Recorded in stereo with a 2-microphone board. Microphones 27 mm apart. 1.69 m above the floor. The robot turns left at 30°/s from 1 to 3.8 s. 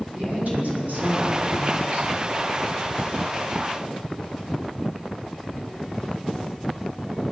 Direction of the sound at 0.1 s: 75° right.